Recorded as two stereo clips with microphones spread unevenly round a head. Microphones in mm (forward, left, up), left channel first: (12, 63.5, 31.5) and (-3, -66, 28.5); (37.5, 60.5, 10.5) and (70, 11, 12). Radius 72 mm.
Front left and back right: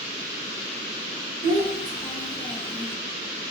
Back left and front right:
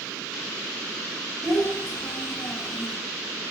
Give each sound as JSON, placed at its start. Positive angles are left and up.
{"t": 1.4, "sound": "a child speaking", "azimuth_deg": -135, "distance_m": 0.9}